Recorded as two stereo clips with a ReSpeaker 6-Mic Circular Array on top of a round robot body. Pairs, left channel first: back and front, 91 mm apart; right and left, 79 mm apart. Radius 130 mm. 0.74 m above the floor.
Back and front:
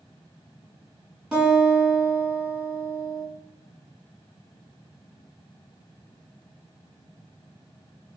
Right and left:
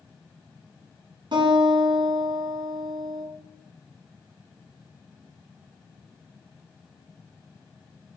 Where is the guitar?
80° left, 1.5 m.